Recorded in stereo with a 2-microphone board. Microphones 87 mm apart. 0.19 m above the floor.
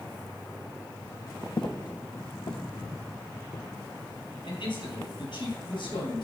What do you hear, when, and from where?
1.6 s footsteps: 55° left (ahead or behind), 0.5 m; by 3.6 s 85° left, 2.5 m
4.4 s a man speaking: 75° left (ahead or behind), 4 m